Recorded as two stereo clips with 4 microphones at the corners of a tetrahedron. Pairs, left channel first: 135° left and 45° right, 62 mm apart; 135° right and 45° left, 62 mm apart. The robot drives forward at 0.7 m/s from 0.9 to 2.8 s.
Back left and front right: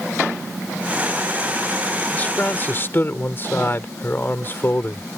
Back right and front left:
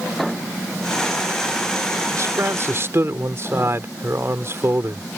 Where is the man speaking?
70° left; by 5.2 s 85° left.